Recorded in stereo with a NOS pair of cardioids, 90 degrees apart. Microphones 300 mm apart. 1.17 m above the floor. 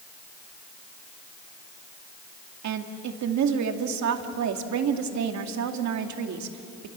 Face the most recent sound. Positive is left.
turn(degrees=-65)